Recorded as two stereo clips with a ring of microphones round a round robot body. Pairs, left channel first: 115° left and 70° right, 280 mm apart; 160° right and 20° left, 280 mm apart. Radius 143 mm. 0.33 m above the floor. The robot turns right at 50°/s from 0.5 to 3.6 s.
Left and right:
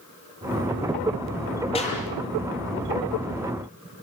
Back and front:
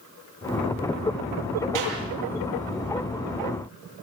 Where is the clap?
40° left, 9 m; by 2.0 s 55° left, 9 m.